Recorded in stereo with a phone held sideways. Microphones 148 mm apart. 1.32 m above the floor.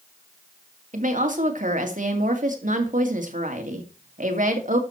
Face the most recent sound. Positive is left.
turn(degrees=-60)  # may be behind; listen again after turning